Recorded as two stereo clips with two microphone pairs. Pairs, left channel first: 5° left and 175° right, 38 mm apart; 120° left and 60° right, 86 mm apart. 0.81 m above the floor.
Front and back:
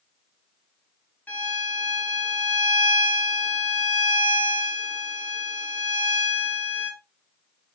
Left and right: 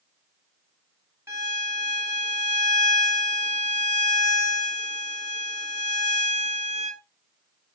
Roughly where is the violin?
Ahead.